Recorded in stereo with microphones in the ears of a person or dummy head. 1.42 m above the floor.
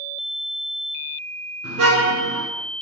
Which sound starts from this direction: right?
A car horn, at 1.6 s.